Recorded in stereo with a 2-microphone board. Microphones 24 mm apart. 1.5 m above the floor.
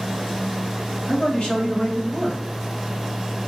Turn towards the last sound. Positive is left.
turn(degrees=45)  # may be behind; listen again after turning